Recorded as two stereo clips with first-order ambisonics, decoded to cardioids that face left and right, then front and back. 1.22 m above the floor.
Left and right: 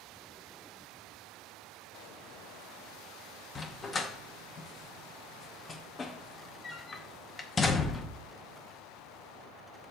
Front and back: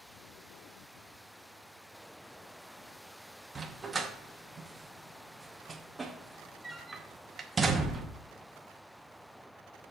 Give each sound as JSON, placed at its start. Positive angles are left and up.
{"t": 3.5, "sound": "a dog barking", "azimuth_deg": 130, "distance_m": 0.6}